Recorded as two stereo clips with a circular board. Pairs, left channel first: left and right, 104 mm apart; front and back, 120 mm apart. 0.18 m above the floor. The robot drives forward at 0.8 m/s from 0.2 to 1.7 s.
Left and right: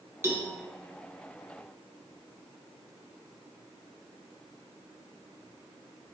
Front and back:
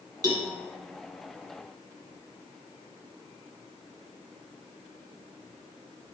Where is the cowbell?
140° right, 0.8 m; by 0.5 s 155° right, 0.9 m.